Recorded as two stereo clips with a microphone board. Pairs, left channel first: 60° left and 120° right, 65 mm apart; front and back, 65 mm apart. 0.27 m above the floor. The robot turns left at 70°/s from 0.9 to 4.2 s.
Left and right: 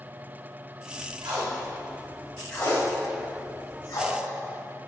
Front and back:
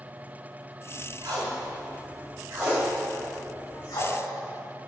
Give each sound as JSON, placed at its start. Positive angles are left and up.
{"t": 1.2, "sound": "tape being pulled", "azimuth_deg": -140, "distance_m": 4.5}